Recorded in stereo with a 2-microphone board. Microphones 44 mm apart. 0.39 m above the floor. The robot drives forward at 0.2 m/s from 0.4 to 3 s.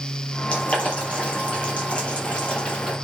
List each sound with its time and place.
0.5 s boiling: 30° left (ahead or behind), 6 m; by 2.9 s 25° left (ahead or behind), 6 m